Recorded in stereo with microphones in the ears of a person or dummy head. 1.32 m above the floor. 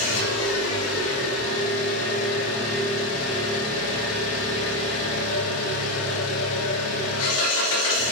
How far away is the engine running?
About 3 m.